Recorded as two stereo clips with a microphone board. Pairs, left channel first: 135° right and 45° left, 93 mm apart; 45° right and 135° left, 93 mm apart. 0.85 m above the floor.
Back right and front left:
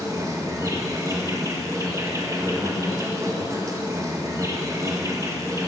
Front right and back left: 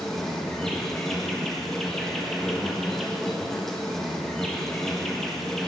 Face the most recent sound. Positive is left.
turn(degrees=35)